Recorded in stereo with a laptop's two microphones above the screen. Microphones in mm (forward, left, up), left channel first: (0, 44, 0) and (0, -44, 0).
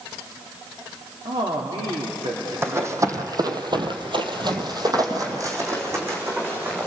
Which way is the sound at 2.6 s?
30° right (ahead or behind).